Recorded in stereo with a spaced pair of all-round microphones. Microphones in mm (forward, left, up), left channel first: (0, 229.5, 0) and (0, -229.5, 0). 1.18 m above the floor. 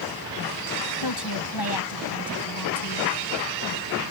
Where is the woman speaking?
55° left (ahead or behind); by 3.1 s 45° left (ahead or behind).